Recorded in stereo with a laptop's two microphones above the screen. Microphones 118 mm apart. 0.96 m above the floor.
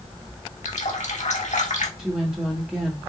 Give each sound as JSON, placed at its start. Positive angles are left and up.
{"t": 0.7, "sound": "a running tap", "side_deg": 85, "distance_m": 1.5}
{"t": 2.0, "sound": "a woman speaking", "side_deg": -5, "distance_m": 1.4}